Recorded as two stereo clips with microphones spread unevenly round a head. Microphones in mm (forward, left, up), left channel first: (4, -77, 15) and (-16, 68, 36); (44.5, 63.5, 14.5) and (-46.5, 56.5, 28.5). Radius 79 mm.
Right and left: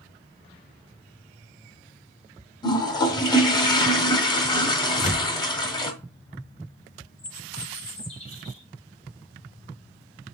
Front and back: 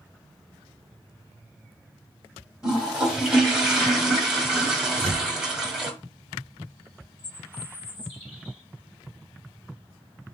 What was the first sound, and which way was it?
A toilet flushing, 125° right.